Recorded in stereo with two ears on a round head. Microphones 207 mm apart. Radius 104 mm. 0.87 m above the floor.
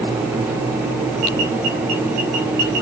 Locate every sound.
Only background noise.